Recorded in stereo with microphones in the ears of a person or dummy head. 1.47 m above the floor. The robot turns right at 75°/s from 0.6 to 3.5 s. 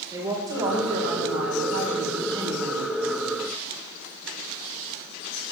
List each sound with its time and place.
0.1 s a woman speaking: 160° right, 5 m; by 2.9 s 15° left, 5 m